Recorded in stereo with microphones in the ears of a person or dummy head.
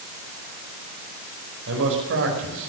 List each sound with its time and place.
1.7 s a man speaking: 65° right (ahead or behind), 5 m